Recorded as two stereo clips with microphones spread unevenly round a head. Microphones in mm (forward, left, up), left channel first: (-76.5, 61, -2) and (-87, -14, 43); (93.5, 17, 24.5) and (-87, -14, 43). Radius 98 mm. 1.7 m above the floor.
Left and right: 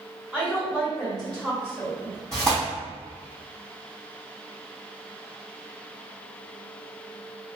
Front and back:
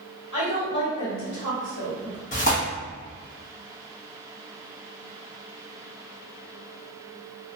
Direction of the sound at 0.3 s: 20° right.